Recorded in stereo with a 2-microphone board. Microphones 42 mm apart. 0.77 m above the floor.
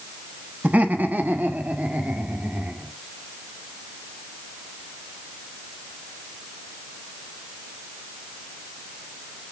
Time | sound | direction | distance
0.6 | laughter | 35° right (ahead or behind) | 1.4 m